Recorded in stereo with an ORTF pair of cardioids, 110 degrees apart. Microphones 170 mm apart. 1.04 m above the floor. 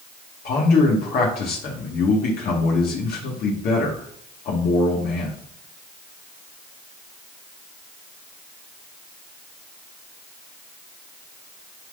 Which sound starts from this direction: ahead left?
A man speaking, at 0.5 s.